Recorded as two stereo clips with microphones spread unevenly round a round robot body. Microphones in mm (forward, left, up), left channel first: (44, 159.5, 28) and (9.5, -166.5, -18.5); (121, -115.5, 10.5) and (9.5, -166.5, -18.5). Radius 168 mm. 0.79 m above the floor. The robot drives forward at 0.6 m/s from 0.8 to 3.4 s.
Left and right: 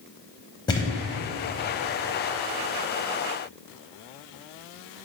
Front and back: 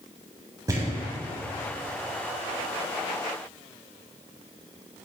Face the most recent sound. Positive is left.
turn(degrees=175)